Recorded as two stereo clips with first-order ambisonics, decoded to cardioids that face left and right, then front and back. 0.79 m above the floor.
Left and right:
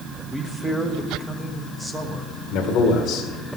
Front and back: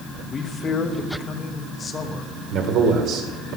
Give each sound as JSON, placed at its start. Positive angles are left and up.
{"t": 0.3, "sound": "a man speaking", "azimuth_deg": -15, "distance_m": 1.0}
{"t": 2.5, "sound": "a man speaking", "azimuth_deg": 140, "distance_m": 2.0}